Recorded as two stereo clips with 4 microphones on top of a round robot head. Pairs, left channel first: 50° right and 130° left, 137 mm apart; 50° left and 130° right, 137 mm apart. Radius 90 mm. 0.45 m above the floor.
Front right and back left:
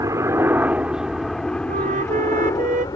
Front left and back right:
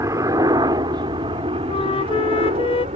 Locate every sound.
0.0 s a helicopter: straight behind; by 3.0 s 105° right
1.7 s a flute: 100° left